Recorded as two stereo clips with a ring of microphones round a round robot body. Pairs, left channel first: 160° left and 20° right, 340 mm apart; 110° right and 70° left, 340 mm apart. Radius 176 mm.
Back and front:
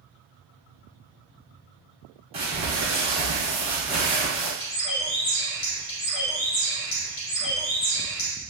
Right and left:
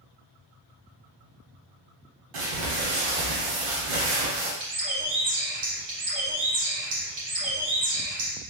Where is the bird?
105° left, 1.4 m.